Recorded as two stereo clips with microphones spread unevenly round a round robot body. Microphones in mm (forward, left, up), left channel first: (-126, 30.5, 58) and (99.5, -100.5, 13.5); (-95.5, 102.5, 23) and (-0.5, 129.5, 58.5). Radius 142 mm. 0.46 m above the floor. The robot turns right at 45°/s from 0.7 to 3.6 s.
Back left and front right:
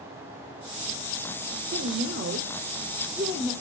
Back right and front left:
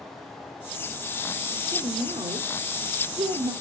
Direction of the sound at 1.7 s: 35° right.